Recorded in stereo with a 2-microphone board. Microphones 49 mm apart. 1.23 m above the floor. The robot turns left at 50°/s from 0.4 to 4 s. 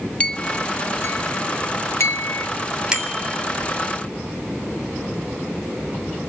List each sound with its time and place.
0.2 s a clink: 25° left (ahead or behind), 1.4 m; by 2.5 s 50° left (ahead or behind), 1.4 m
2.9 s a bicycle bell: 15° right (ahead or behind), 3.5 m; by 3.4 s 40° right (ahead or behind), 3.5 m